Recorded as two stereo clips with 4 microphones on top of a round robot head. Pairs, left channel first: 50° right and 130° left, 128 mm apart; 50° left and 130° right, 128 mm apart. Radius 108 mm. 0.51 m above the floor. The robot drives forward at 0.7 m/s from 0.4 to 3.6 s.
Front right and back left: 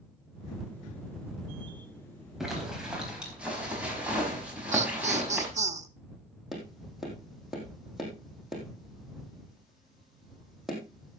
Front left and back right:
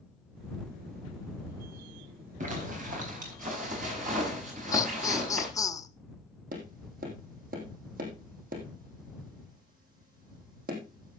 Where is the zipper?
145° right, 4 m; by 5.5 s 150° right, 5 m.